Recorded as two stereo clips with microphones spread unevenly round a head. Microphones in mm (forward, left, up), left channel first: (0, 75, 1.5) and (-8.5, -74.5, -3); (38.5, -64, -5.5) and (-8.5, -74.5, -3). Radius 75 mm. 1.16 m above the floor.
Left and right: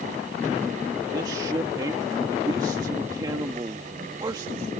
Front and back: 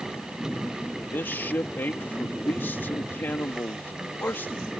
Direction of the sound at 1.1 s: 25° right.